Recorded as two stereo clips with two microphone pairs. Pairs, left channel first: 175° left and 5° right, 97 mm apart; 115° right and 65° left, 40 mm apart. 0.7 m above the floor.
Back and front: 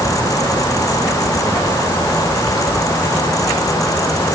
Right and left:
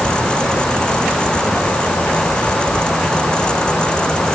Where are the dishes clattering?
No dishes clattering in this recording.